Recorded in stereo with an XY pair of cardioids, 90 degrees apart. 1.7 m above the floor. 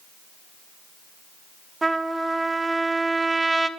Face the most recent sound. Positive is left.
turn(degrees=-25)